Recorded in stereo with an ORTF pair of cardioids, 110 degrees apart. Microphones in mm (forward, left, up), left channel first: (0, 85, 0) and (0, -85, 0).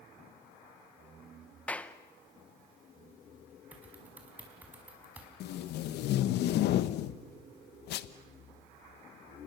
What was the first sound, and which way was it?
A clap, 5° left.